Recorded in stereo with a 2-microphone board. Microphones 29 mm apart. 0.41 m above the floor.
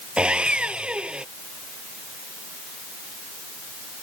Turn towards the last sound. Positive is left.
turn(degrees=-35)  # may be behind; listen again after turning